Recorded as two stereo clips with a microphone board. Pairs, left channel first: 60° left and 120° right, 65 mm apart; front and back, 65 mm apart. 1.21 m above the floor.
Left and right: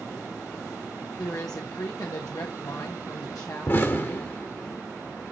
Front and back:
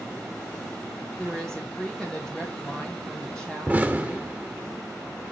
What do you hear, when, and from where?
1.2 s a woman speaking: 80° left, 1.1 m
3.7 s an explosion: 110° left, 1.4 m